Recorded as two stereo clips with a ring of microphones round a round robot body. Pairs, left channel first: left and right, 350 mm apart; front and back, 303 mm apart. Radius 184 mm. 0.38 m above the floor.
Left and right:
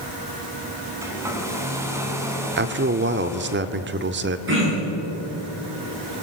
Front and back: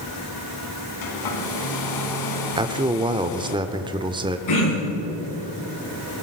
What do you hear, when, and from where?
1.0 s a hair dryer: 10° right, 2.5 m
2.6 s a man speaking: 115° right, 0.9 m
4.5 s throat clearing: 35° right, 8.5 m